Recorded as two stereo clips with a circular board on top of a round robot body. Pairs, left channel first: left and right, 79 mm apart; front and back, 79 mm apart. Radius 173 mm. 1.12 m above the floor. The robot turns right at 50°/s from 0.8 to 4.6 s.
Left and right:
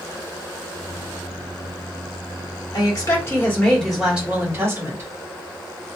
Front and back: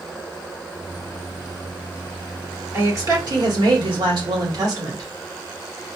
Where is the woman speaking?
120° left, 1.4 m; by 5.1 s 145° right, 1.4 m.